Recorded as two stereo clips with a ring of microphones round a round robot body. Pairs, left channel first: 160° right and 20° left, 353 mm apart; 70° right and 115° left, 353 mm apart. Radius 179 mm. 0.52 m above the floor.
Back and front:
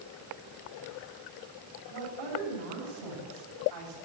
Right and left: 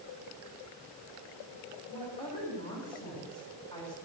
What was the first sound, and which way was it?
A woman speaking, 10° left.